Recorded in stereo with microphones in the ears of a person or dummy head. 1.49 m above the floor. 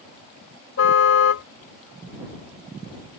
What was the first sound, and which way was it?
A car horn, 70° left (ahead or behind).